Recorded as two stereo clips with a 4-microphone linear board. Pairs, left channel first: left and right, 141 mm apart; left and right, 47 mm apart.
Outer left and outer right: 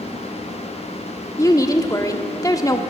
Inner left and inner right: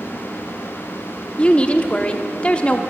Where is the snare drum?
I don't hear a snare drum.